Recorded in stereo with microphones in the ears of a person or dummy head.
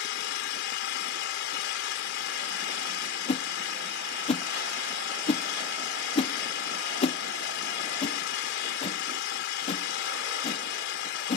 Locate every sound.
0.0 s an engine running: 75° left (ahead or behind)
3.3 s a whoosh: 35° left (ahead or behind)